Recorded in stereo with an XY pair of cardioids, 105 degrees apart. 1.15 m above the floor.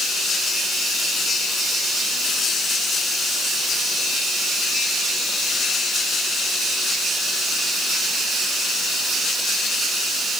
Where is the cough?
No cough in this recording.